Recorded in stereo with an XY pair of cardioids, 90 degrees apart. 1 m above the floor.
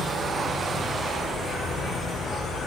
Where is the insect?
70° left, 10 m.